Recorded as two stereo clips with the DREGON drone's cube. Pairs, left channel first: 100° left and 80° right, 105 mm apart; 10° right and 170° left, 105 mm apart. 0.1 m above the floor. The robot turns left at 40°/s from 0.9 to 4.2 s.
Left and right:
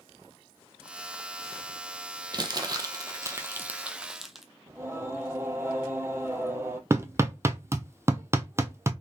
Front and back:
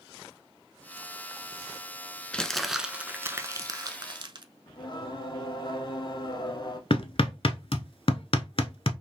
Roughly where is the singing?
Ahead right.